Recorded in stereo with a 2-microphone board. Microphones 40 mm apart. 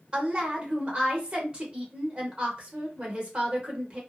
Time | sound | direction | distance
0.1 | a woman speaking | 25° right (ahead or behind) | 1.0 m